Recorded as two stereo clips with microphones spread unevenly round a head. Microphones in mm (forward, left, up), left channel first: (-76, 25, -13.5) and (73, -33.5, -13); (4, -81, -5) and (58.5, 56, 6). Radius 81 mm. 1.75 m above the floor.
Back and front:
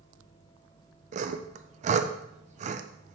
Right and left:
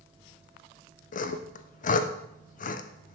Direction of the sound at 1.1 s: 70° right.